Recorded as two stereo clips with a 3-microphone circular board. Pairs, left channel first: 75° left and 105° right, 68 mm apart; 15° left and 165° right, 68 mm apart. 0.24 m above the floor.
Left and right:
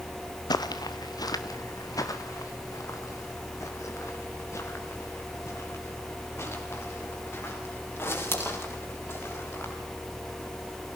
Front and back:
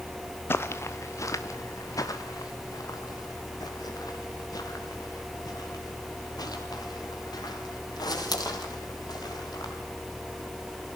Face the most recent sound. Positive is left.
turn(degrees=20)